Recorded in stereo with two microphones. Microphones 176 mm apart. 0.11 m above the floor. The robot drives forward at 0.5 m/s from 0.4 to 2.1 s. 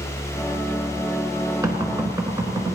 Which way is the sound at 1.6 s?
20° right (ahead or behind).